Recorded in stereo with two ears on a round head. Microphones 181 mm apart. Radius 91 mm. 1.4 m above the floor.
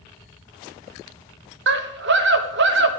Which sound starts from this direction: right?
A scream, at 1.7 s.